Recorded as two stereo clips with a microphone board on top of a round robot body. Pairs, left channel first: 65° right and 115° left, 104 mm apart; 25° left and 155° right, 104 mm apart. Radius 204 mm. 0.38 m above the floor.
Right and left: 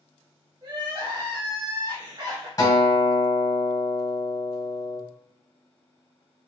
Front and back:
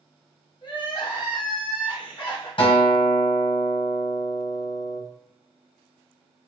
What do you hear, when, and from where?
0.6 s crying: 65° left, 1.4 m
2.6 s a guitar: 10° right, 1.7 m